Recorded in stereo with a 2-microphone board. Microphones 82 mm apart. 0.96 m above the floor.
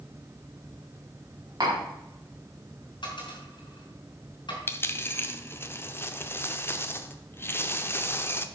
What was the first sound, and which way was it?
Tapping, 50° right (ahead or behind).